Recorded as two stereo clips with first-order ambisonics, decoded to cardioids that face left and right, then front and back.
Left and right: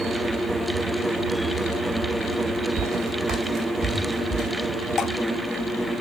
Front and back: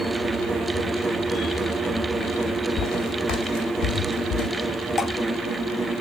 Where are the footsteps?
40° right, 3 m; by 4.5 s 20° right, 3 m.